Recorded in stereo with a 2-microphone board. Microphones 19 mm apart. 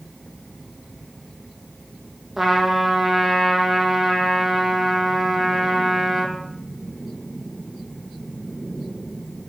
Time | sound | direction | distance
2.4 | a trumpet | 10° right (ahead or behind) | 1.8 m